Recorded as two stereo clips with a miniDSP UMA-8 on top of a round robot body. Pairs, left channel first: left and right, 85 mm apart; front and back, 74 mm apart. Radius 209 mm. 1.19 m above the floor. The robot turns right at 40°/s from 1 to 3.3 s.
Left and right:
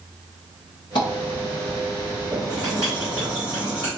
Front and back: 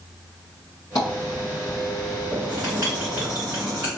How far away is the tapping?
About 0.6 m.